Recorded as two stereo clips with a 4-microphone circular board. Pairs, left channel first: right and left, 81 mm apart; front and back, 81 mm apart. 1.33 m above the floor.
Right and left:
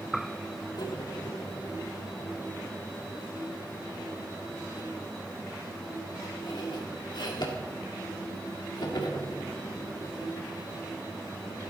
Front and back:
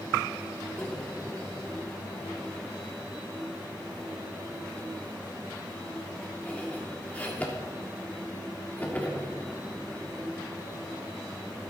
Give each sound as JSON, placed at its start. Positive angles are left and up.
{"t": 0.8, "sound": "cutlery clinking", "azimuth_deg": -70, "distance_m": 1.8}